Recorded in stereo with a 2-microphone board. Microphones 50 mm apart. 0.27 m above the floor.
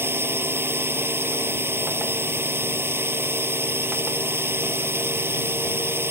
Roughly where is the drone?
Right.